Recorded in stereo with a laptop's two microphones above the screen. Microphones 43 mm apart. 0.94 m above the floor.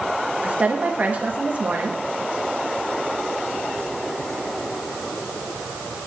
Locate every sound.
0.4 s a woman speaking: 35° right (ahead or behind), 1.0 m